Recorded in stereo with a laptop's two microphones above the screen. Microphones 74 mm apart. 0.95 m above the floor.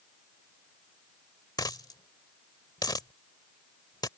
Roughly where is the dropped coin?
Left.